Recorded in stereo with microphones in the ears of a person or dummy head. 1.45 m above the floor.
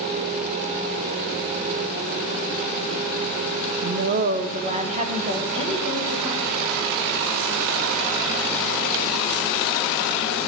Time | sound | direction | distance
3.8 | a woman speaking | 50° right (ahead or behind) | 0.6 m